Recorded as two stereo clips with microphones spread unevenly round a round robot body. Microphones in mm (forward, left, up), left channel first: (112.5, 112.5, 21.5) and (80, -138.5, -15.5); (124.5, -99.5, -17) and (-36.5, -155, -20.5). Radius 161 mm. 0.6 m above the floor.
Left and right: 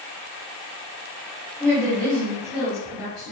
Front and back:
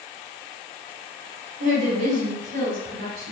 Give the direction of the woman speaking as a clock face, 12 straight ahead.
6 o'clock.